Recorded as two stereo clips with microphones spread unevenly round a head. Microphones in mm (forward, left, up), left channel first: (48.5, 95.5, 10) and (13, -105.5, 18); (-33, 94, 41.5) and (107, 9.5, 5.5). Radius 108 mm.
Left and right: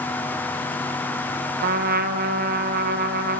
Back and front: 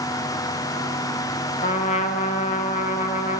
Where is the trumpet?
150° right, 0.6 m.